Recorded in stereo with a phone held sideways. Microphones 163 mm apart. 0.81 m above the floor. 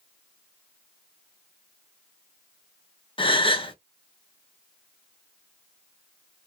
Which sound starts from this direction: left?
A gasp, at 3.2 s.